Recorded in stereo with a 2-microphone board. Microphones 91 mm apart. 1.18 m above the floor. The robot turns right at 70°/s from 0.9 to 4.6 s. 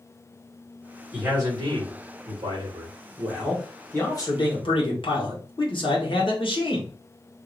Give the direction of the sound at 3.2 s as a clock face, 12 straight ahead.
1 o'clock.